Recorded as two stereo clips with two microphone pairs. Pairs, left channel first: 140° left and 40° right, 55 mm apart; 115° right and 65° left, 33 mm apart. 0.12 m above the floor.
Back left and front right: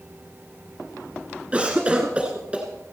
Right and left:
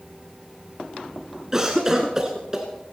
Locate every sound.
1.5 s a cough: 5° left, 1.4 m